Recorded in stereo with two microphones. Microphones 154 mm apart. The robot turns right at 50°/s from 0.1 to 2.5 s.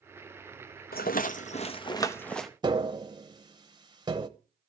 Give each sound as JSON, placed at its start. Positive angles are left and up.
{"t": 0.9, "sound": "a rattle", "azimuth_deg": 100, "distance_m": 0.9}
{"t": 2.6, "sound": "tapping", "side_deg": -30, "distance_m": 0.9}